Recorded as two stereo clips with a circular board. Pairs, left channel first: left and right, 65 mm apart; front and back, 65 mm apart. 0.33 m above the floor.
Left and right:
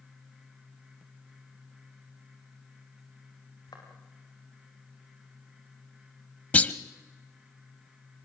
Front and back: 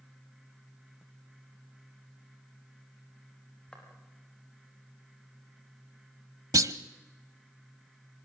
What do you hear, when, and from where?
3.7 s footsteps: 75° left, 7 m
6.5 s a clunk: 155° left, 0.8 m